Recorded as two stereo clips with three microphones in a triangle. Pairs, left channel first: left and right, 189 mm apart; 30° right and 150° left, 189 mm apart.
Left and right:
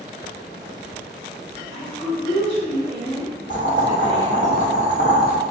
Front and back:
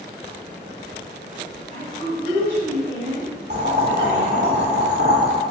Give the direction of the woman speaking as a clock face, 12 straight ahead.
8 o'clock.